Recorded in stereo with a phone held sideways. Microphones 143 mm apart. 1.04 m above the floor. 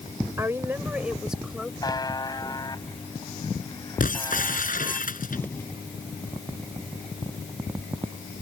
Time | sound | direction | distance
0.4 | a woman speaking | 20° right (ahead or behind) | ?
1.8 | a buzzer | 25° left (ahead or behind) | ?
4.0 | breaking glass | 65° left (ahead or behind) | ?
5.3 | an explosion | 15° left (ahead or behind) | ?